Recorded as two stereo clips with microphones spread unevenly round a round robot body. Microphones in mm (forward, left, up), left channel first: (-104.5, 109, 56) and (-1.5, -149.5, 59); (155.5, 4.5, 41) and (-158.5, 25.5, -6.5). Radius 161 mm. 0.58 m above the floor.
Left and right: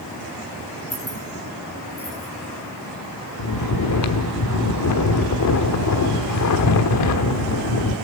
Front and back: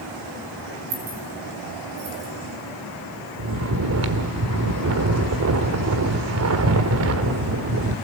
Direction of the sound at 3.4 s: 135° left.